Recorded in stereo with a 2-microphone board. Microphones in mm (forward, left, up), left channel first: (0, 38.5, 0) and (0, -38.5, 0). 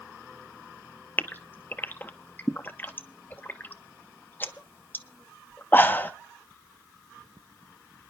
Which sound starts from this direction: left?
A gasp, at 1.2 s.